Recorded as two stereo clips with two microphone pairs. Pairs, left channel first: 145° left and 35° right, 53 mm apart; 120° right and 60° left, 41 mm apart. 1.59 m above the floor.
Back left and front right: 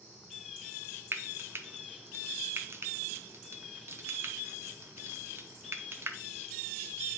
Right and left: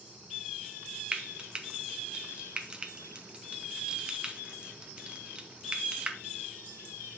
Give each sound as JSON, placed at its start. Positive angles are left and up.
{"t": 1.1, "sound": "frying", "azimuth_deg": -5, "distance_m": 0.8}